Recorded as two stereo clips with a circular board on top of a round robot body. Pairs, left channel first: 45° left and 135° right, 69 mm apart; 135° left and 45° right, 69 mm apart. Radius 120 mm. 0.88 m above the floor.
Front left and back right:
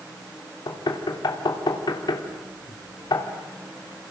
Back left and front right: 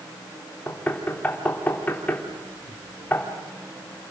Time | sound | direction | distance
0.7 | knocking | 65° left | 3 m